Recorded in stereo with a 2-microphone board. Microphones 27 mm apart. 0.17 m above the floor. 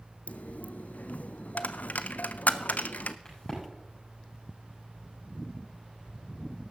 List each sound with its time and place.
0.3 s a dropped coin: 75° left (ahead or behind), 0.5 m
3.2 s a crack: 25° left (ahead or behind), 7 m